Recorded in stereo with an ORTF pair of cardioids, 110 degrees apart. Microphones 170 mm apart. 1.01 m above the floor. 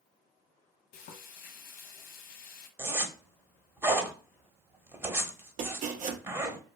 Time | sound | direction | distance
0.9 | frying | 60° left | 0.7 m
2.8 | a zipper | 10° right | 0.8 m
5.6 | chopping | 50° right | 0.6 m